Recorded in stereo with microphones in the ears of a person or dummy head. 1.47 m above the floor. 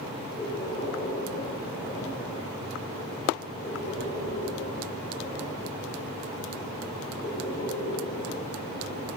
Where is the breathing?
35° left (ahead or behind), 2 m.